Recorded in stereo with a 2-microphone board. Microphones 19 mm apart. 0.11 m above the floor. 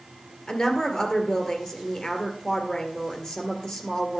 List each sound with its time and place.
0.5 s a woman speaking: 40° left (ahead or behind), 2 m